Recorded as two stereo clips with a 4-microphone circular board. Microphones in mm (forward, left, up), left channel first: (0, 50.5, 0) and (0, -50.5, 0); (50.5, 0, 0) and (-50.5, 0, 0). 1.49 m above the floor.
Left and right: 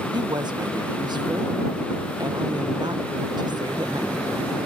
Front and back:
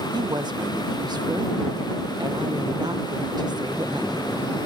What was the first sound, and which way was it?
A woman speaking, 135° right.